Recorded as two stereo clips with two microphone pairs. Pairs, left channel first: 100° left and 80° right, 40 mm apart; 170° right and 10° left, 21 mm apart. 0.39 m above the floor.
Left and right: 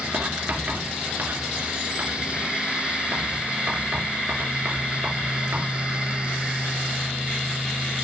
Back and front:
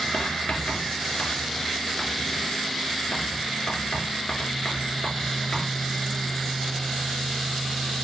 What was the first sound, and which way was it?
Writing, 120° right.